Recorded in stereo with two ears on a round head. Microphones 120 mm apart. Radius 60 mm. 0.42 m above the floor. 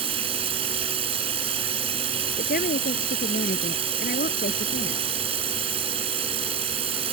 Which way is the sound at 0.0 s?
45° right (ahead or behind).